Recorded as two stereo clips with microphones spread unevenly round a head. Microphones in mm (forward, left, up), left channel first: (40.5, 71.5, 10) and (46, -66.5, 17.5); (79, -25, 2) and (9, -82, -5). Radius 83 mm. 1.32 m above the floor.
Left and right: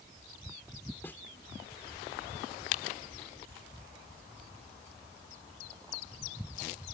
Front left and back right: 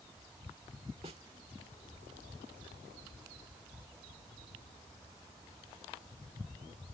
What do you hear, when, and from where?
1.0 s a snare drum: 175° left